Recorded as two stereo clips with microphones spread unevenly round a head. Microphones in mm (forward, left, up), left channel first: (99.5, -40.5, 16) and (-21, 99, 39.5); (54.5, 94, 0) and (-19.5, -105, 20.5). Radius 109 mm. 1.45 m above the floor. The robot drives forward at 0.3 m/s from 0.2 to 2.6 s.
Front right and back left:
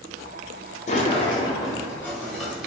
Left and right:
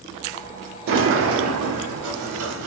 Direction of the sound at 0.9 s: 90° right.